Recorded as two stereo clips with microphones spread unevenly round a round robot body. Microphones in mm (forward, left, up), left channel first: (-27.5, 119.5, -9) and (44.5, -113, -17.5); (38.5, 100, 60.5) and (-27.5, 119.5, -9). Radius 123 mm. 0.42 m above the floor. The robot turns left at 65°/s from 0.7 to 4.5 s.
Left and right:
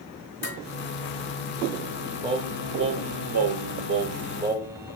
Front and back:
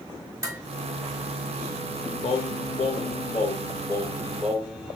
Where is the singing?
Straight ahead, 0.6 m; by 5.0 s 150° right, 0.6 m.